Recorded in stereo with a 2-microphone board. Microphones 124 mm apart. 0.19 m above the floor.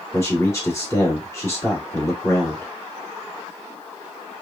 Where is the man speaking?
20° left (ahead or behind), 1.7 m.